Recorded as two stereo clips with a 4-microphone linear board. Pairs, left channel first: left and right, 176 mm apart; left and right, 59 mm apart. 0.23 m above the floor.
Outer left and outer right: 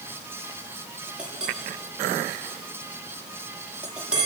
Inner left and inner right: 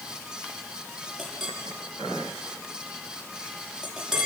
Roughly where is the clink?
Centre.